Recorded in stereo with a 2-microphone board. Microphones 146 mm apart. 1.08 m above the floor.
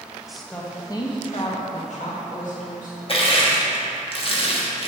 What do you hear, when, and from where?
0.3 s a woman speaking: 5° right (ahead or behind), 1.0 m; by 3.0 s 75° left (ahead or behind), 2 m
3.1 s crushing: 45° left (ahead or behind), 1.1 m